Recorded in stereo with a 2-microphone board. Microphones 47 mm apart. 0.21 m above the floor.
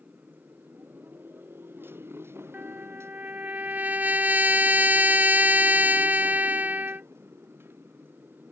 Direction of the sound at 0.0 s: 35° right (ahead or behind).